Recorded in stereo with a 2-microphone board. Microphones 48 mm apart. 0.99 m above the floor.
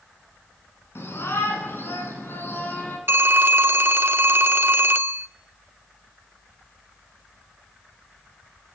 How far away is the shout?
About 9.5 m.